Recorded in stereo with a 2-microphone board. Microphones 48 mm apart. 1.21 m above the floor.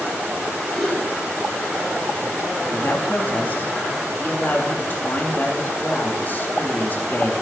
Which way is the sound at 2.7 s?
40° left (ahead or behind).